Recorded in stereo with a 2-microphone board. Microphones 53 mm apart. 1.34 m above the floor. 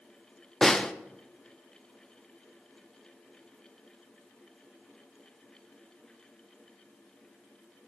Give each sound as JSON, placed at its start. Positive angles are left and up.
{"t": 0.6, "sound": "a snare drum", "side_deg": 10, "distance_m": 0.5}